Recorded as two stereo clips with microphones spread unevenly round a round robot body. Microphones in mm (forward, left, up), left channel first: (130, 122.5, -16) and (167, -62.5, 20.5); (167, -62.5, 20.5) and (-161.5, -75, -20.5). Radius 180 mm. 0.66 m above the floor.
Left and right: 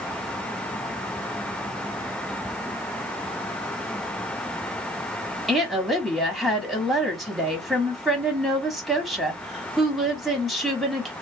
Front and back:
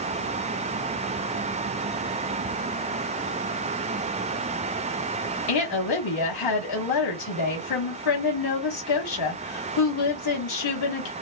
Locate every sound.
5.5 s a woman speaking: 15° left, 1.3 m